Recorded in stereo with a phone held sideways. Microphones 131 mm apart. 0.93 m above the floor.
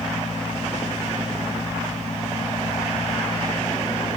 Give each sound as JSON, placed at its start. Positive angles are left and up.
{"t": 0.0, "sound": "a fan", "side_deg": 70, "distance_m": 6.5}